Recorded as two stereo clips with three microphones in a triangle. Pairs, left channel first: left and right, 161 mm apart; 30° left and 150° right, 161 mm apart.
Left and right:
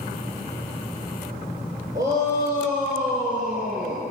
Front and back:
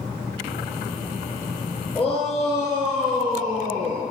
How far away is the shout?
About 2.5 m.